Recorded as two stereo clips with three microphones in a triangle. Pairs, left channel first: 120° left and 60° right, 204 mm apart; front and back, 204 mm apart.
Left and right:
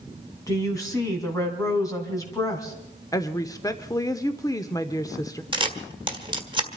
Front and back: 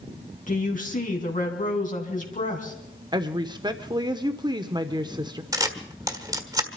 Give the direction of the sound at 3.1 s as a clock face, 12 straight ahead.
7 o'clock.